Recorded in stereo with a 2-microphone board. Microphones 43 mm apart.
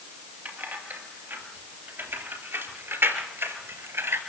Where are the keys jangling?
50° right (ahead or behind), 3.5 m; by 4.2 s 75° right (ahead or behind), 3 m.